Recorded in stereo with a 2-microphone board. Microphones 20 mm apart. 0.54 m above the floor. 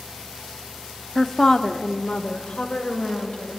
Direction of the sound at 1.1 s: 15° left (ahead or behind).